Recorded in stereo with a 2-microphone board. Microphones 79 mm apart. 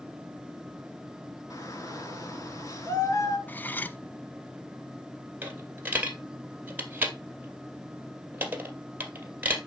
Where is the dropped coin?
25° right (ahead or behind), 2 m.